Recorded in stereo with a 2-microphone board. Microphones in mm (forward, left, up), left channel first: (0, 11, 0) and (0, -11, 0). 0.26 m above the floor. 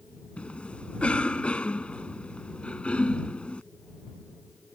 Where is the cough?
60° left (ahead or behind).